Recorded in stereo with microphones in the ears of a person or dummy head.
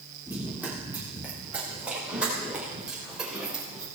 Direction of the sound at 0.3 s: 15° right (ahead or behind).